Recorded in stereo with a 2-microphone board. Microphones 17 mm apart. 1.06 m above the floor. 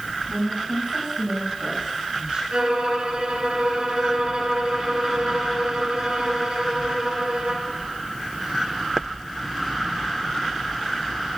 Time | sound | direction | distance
0.3 | a woman speaking | 65° right (ahead or behind) | 6.5 m
2.5 | a violin | 60° right (ahead or behind) | 2.5 m